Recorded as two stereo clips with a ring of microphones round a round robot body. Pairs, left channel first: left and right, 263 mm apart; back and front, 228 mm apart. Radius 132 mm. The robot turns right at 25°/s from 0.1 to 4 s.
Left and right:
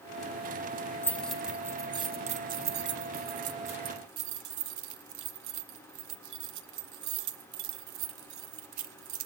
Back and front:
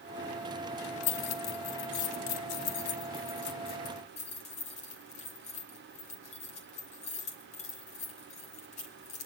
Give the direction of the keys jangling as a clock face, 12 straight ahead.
6 o'clock.